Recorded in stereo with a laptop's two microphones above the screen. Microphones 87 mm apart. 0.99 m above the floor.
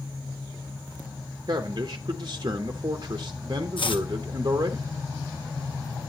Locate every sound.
1.5 s a man speaking: 45° right (ahead or behind), 0.7 m
3.8 s chopping: 75° left (ahead or behind), 0.7 m